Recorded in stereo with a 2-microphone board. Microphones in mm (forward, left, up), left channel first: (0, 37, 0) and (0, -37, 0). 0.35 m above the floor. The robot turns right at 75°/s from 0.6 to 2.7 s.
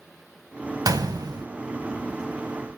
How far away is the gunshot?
About 0.8 m.